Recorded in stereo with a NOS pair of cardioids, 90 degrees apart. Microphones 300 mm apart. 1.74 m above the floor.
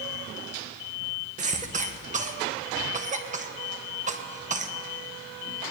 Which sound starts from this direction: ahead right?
A cough, at 1.4 s.